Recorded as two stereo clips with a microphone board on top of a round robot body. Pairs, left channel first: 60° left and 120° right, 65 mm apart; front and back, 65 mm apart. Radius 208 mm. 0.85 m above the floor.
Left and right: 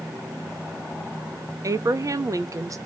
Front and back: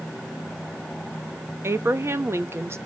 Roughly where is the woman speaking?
Behind right.